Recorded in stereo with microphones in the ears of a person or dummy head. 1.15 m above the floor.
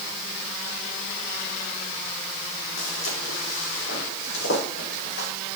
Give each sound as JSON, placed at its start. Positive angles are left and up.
{"t": 2.8, "sound": "footsteps", "side_deg": 80, "distance_m": 6.0}